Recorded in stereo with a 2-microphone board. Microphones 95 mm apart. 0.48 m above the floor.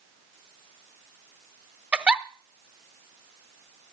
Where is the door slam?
No door slam in this recording.